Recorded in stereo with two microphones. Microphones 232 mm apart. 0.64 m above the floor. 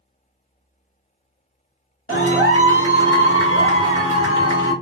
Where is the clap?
60° left (ahead or behind), 1.7 m.